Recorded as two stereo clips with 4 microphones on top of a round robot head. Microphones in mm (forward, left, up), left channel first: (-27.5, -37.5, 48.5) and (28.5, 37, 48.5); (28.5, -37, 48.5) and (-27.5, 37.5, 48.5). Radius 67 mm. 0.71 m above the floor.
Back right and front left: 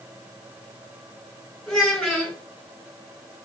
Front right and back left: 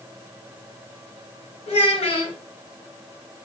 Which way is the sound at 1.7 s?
35° right.